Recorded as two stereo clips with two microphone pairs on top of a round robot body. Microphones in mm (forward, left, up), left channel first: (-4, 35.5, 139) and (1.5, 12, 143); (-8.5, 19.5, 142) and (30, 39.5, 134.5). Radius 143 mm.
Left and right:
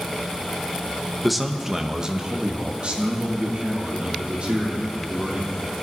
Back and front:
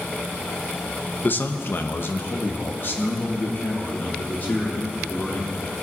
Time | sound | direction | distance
1.2 | a man speaking | straight behind | 1.0 m